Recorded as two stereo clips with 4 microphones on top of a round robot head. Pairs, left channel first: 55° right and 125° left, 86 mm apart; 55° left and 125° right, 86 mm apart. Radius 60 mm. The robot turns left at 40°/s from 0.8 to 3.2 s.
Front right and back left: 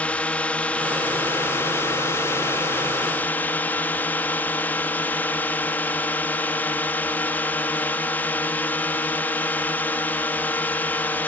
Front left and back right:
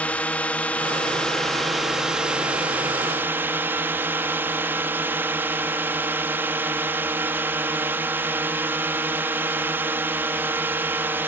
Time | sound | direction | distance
0.0 | a drone | straight ahead | ?